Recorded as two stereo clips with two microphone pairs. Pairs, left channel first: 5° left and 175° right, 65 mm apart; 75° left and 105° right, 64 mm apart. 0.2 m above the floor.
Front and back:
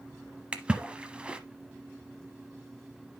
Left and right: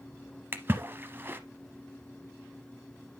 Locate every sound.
0.5 s a splash: 110° right, 0.9 m